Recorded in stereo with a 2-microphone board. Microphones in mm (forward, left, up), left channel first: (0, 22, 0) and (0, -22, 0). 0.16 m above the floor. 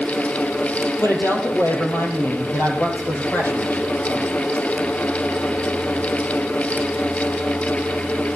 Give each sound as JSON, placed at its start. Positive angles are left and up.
{"t": 1.0, "sound": "a woman speaking", "side_deg": 65, "distance_m": 4.0}